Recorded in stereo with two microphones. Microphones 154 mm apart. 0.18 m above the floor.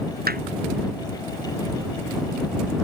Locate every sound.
0.3 s hammering: 70° right (ahead or behind)